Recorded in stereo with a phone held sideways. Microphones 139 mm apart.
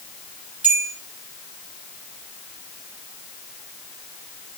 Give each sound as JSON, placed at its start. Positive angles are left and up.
{"t": 0.6, "sound": "a bell", "side_deg": -10, "distance_m": 7.0}